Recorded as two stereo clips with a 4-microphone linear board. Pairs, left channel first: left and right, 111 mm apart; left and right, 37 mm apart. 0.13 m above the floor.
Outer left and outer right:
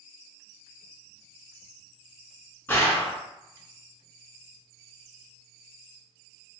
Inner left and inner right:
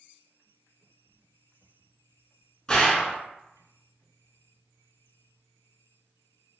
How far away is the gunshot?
About 1.1 m.